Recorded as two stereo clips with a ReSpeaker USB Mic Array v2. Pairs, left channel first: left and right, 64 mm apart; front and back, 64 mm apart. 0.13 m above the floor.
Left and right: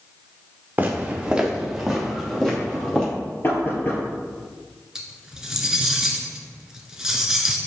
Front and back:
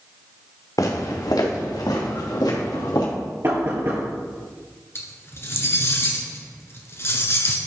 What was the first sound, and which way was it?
Footsteps, 25° right.